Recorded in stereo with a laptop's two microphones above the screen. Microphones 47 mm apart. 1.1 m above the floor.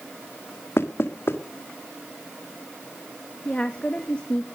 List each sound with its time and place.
0.8 s knocking: 60° left (ahead or behind), 1.7 m
3.5 s a woman speaking: 20° left (ahead or behind), 1.6 m